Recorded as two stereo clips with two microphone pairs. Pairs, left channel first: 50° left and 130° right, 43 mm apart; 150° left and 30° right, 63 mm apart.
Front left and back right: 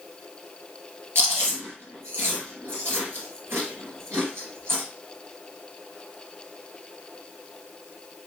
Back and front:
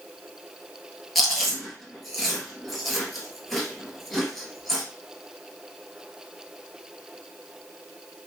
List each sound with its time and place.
1.1 s chewing: 120° right, 1.8 m